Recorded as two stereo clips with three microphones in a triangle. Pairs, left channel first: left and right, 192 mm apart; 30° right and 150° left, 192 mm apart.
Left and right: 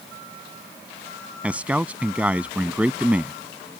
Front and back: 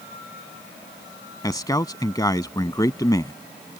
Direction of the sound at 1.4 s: 20° right.